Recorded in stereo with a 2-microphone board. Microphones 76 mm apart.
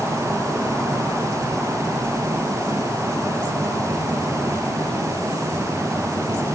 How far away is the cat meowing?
I don't hear a cat meowing.